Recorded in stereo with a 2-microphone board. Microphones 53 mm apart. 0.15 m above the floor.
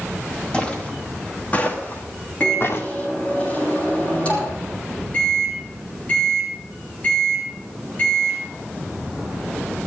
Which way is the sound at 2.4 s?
25° left (ahead or behind).